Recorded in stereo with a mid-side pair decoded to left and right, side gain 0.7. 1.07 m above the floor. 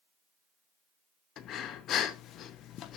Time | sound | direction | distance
1.4 | breathing | 50° left | 1.1 m